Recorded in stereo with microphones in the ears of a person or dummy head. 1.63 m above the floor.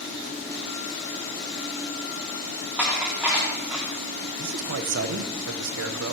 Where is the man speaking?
70° right (ahead or behind), 1.2 m.